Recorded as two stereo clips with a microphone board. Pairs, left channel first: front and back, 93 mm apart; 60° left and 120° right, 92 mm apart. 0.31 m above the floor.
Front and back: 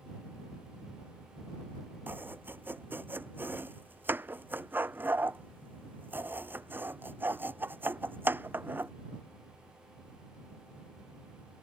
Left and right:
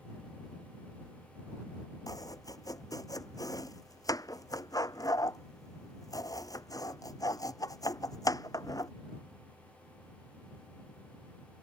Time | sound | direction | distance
2.1 | chopping | 110° left | ?